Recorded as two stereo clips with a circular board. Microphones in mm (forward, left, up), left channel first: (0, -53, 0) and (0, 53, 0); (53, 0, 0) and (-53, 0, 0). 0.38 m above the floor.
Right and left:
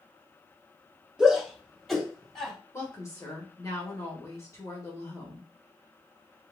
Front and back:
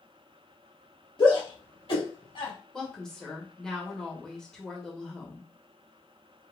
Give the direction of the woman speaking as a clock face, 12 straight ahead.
3 o'clock.